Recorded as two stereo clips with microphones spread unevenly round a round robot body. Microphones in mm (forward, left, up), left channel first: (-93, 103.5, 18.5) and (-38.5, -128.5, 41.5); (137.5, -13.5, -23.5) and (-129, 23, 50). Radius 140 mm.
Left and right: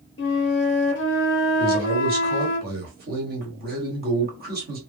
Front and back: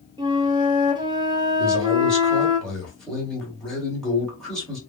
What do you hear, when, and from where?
0.2 s a flute: 90° left, 0.7 m
1.6 s a man speaking: 65° right, 1.5 m